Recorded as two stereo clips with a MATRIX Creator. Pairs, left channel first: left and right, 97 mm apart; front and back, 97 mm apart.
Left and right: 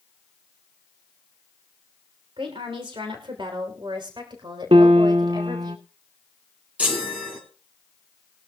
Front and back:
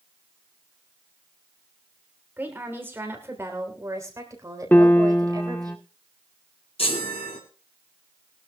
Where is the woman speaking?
110° right, 2.5 m; by 5.7 s 135° right, 4 m.